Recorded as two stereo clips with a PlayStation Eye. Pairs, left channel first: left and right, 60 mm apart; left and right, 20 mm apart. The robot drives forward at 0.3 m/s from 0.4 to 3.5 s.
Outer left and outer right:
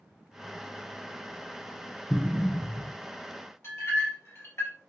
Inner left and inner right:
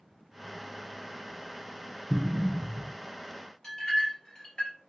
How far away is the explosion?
About 0.7 m.